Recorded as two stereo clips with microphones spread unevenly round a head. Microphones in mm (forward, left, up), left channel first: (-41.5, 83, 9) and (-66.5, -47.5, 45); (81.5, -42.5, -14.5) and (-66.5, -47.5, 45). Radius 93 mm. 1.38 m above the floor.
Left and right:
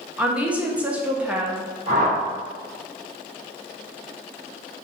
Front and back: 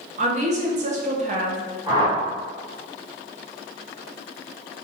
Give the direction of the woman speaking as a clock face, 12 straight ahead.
6 o'clock.